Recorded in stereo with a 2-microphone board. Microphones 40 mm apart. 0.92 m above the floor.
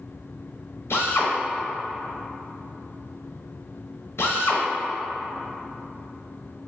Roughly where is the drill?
Left.